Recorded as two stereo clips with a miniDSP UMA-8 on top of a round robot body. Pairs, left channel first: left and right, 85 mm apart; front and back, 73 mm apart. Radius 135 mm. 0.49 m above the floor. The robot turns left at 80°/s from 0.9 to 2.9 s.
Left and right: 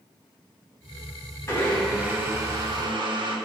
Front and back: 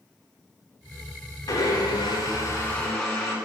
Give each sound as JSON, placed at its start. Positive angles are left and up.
{"t": 1.5, "sound": "a blender", "azimuth_deg": 35, "distance_m": 9.5}